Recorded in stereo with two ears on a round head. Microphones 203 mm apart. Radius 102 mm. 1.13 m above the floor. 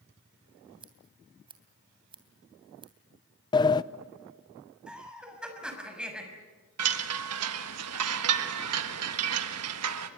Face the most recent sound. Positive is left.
turn(degrees=-75)  # may be behind; listen again after turning